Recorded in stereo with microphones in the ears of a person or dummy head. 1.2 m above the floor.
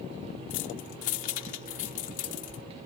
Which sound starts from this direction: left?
Keys jangling, at 0.5 s.